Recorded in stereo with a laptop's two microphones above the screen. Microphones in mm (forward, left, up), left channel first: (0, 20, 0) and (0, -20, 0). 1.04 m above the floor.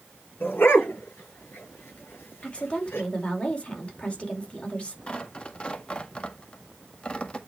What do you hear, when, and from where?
0.4 s a dog barking: 60° left (ahead or behind), 6.5 m
2.4 s a woman speaking: 30° left (ahead or behind), 2 m
5.1 s tearing paper: 25° left (ahead or behind), 1.9 m